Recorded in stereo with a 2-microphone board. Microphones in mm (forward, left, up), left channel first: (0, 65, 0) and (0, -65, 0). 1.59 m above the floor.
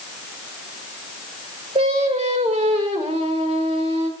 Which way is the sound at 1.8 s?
55° right (ahead or behind).